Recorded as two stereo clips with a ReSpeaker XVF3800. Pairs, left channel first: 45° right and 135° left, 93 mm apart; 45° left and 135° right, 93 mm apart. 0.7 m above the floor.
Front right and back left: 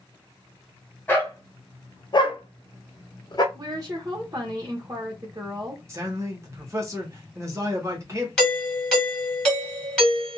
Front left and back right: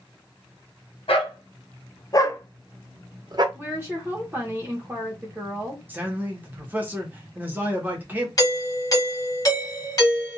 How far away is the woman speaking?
About 1.0 m.